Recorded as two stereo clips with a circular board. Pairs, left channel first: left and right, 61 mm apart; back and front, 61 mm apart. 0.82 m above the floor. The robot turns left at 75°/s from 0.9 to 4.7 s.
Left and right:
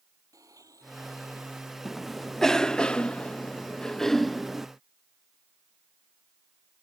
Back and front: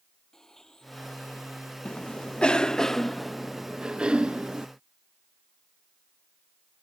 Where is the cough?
165° right; by 4.7 s 20° right.